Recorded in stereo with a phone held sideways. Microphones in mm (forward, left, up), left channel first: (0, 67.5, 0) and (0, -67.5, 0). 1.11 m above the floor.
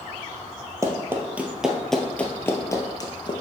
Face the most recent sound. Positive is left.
turn(degrees=35)  # may be behind; listen again after turning